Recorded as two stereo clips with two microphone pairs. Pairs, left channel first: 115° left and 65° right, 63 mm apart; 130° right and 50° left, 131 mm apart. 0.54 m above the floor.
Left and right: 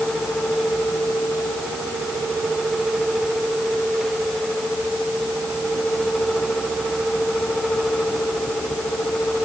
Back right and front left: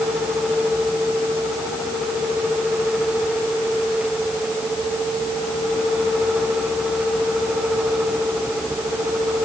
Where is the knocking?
I don't hear knocking.